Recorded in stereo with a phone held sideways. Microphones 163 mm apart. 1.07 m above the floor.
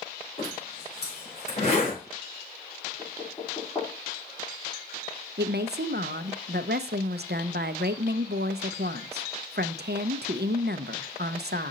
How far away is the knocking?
About 3 m.